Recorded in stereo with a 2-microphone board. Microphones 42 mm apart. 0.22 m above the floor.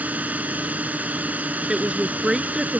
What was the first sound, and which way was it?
A drone, 40° right (ahead or behind).